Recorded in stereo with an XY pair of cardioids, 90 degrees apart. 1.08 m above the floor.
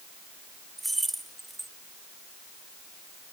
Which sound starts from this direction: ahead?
Keys jangling, at 0.8 s.